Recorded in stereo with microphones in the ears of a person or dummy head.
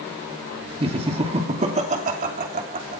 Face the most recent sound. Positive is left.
turn(degrees=-50)  # may be behind; listen again after turning